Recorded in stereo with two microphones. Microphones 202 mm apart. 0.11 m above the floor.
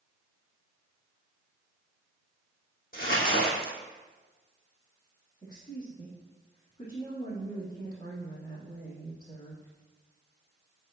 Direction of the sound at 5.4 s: 15° left (ahead or behind).